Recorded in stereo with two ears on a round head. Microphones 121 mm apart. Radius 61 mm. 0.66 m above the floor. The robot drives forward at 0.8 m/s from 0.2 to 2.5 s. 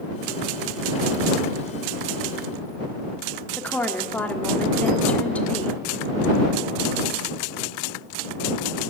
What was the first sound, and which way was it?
A woman speaking, 10° left (ahead or behind).